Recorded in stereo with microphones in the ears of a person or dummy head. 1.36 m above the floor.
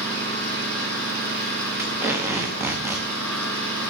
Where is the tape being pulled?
5° right (ahead or behind), 1.2 m.